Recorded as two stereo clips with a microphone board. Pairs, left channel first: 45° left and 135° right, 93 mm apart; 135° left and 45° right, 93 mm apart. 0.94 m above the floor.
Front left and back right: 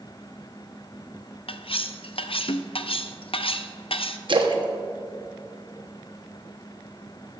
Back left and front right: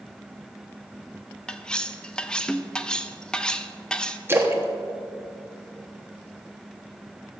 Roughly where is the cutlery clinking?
Ahead left.